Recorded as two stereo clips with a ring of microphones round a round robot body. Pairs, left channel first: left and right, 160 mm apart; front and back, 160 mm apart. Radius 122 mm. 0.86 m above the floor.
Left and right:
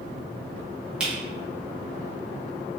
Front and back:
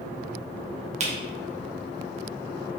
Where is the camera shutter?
170° right, 1.0 m.